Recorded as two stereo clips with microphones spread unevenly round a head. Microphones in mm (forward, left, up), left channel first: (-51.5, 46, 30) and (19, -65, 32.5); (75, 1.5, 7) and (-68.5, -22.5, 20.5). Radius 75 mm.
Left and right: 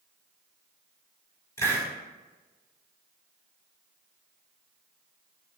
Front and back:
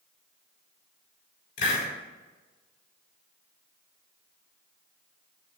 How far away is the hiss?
About 4 m.